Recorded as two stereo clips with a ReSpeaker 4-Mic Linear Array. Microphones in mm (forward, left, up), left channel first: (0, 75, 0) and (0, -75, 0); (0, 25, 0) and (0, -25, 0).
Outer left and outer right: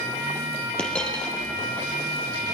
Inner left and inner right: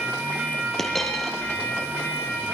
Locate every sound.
0.8 s a dropped coin: 5° left (ahead or behind), 4 m